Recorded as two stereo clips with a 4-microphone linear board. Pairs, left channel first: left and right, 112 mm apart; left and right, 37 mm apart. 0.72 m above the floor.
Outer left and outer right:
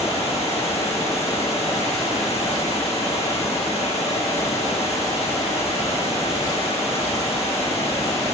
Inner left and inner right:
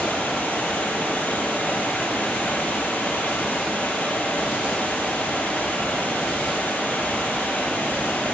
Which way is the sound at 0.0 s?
70° left (ahead or behind).